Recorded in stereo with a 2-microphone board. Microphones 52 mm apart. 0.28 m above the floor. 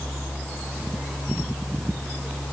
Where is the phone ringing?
No phone ringing in this recording.